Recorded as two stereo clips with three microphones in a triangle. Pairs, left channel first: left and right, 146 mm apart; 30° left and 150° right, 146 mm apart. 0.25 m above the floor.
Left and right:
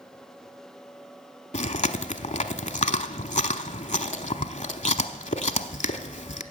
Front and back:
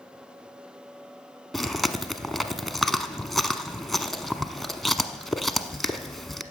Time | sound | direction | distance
1.5 | chewing | 120° left | 0.8 m